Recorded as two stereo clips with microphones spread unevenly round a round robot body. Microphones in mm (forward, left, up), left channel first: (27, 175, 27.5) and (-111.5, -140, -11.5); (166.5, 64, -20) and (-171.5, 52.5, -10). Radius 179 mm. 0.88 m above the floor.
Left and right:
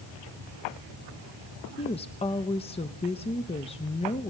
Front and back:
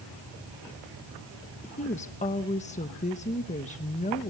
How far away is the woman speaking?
About 0.9 m.